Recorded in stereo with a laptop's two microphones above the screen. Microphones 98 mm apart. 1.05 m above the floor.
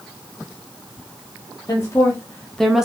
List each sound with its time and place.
1.7 s a woman speaking: 40° left (ahead or behind), 0.7 m; by 2.9 s 5° right (ahead or behind), 0.6 m